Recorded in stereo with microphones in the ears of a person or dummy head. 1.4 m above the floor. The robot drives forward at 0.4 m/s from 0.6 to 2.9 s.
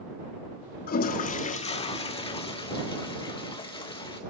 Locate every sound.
0.9 s a toilet flushing: 45° left (ahead or behind), 0.9 m; by 4.2 s 25° left (ahead or behind), 1.5 m